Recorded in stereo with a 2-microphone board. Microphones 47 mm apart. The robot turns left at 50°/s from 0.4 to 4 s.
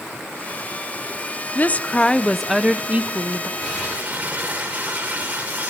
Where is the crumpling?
15° right (ahead or behind), 10 m; by 5.7 s 35° right (ahead or behind), 10 m.